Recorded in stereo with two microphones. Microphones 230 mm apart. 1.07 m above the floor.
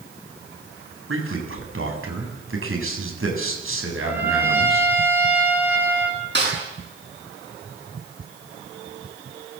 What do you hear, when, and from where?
1.1 s a man speaking: 70° right (ahead or behind), 7 m
4.0 s a trumpet: 10° right (ahead or behind), 4.5 m
6.3 s a snare drum: 50° right (ahead or behind), 9 m